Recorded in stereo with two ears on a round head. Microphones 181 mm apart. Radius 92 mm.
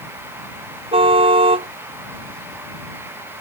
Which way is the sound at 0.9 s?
30° right (ahead or behind).